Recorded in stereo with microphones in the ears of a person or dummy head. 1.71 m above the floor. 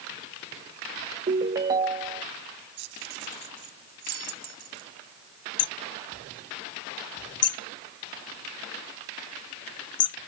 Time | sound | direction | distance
1.3 | a ringtone | 25° right (ahead or behind) | ?
2.8 | keys jangling | 70° right (ahead or behind) | ?
5.6 | hammering | 30° left (ahead or behind) | ?